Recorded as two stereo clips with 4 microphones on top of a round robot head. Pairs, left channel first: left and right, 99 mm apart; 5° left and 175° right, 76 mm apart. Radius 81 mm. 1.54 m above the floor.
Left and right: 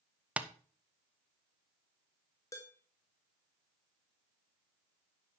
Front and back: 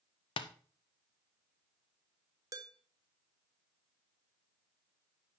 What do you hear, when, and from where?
0.4 s tapping: 10° right, 0.7 m
2.5 s dishes clattering: 155° left, 1.0 m